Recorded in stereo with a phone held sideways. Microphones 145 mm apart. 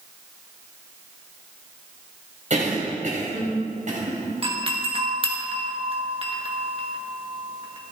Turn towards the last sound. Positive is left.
turn(degrees=-40)  # may be behind; listen again after turning